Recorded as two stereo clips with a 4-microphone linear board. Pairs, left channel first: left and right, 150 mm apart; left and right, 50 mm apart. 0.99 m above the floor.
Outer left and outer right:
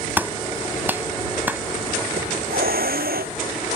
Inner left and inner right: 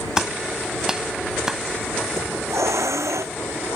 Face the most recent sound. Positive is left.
turn(degrees=-85)